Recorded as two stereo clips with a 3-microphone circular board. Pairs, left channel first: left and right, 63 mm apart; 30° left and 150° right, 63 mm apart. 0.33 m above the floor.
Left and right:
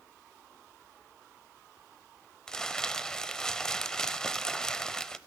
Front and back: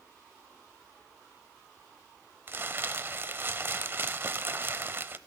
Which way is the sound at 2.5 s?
170° left.